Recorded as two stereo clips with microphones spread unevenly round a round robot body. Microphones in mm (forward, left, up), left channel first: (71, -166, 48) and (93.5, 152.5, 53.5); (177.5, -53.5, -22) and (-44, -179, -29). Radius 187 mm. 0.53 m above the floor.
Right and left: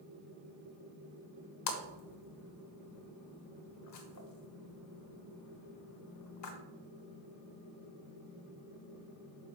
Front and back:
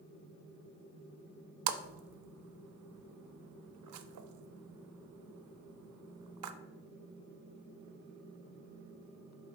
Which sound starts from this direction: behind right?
A splash, at 1.7 s.